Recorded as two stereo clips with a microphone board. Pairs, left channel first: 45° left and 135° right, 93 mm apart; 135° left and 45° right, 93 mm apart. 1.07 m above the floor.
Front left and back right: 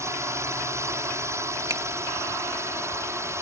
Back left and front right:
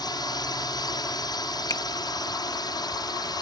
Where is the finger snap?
175° left.